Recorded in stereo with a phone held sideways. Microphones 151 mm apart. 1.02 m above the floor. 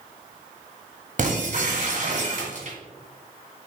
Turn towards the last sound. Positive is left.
turn(degrees=-60)  # may be behind; listen again after turning